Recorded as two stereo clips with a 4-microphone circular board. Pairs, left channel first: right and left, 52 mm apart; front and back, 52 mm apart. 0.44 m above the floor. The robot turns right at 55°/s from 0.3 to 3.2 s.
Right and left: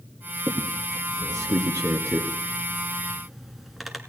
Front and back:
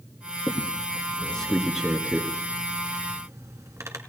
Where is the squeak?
25° left, 1.5 m; by 4.0 s 175° left, 1.5 m.